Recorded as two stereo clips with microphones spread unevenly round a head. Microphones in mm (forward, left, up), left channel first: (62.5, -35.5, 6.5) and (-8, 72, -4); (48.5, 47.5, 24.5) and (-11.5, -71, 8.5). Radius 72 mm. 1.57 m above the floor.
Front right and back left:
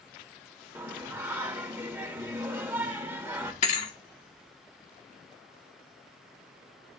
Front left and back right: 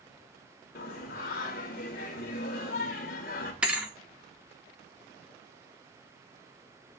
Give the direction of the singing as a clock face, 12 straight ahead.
10 o'clock.